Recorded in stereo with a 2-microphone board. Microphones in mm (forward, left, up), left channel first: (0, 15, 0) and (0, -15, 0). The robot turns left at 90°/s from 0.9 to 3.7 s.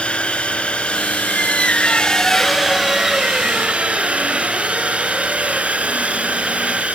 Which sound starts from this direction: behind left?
A squeak, at 1.3 s.